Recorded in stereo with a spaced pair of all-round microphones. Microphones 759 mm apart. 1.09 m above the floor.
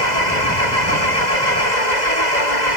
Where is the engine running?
65° left (ahead or behind).